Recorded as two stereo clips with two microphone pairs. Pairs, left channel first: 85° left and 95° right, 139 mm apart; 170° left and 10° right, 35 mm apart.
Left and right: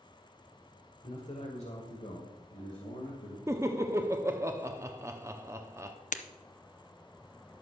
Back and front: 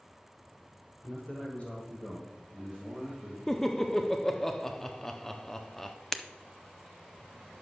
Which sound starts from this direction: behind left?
A man speaking, at 1.0 s.